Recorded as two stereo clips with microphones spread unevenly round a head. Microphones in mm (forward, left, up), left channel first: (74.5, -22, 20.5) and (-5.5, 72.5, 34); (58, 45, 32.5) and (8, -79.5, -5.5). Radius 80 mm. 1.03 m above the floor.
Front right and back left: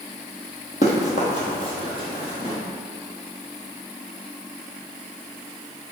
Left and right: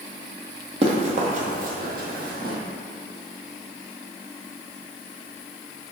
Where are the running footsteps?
70° right, 1.5 m; by 2.6 s 125° right, 1.6 m.